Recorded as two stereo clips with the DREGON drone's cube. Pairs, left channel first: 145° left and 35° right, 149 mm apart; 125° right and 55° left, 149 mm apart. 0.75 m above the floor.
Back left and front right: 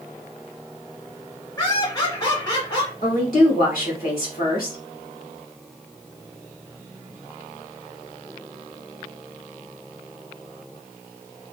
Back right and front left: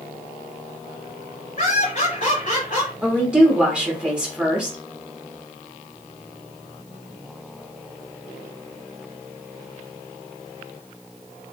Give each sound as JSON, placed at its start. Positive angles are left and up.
{"t": 1.6, "sound": "laughter", "azimuth_deg": -150, "distance_m": 1.7}
{"t": 3.0, "sound": "a woman speaking", "azimuth_deg": 140, "distance_m": 2.0}